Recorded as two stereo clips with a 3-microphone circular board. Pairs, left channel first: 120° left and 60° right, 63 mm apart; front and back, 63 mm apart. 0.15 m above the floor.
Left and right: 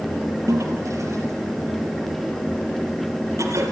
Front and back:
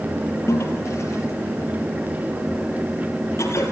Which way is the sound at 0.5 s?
35° right.